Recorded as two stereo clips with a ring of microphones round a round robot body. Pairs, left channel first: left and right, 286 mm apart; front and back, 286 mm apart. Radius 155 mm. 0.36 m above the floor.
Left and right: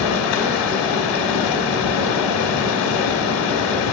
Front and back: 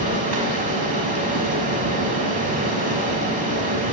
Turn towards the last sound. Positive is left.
turn(degrees=115)